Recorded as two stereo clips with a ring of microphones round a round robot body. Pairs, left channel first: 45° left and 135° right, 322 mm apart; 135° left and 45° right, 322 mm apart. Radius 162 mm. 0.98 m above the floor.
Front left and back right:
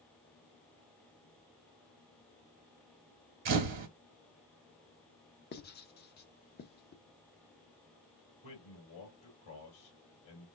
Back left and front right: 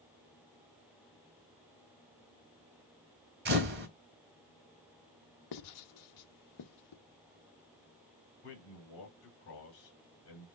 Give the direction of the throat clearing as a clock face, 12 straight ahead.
No throat clearing in this recording.